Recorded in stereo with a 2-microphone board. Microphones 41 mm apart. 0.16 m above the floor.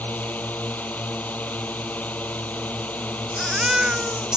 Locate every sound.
0.0 s a drone: 40° left (ahead or behind)
3.3 s a baby crying: 20° right (ahead or behind)